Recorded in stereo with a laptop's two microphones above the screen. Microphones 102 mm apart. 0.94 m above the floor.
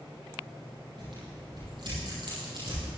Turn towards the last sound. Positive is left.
turn(degrees=-55)  # may be behind; listen again after turning